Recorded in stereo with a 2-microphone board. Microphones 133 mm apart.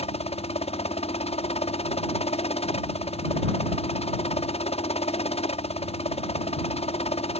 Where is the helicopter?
45° left (ahead or behind).